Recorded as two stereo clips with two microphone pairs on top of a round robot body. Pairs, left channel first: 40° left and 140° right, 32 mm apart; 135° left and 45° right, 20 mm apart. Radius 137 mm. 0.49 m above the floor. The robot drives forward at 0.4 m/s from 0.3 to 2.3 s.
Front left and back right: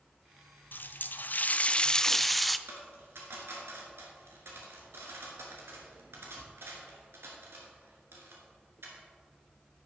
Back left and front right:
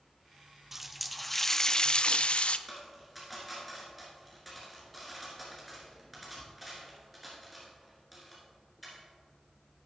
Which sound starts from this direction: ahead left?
A running tap, at 0.7 s.